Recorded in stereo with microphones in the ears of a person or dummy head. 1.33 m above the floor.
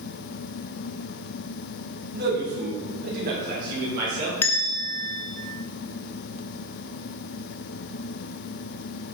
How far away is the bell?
About 0.5 m.